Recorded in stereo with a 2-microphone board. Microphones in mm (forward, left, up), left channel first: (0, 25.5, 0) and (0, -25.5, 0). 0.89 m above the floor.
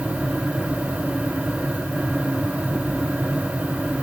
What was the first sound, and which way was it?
Only background noise.